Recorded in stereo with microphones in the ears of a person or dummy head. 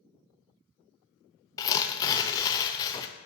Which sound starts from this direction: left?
Tearing paper, at 1.6 s.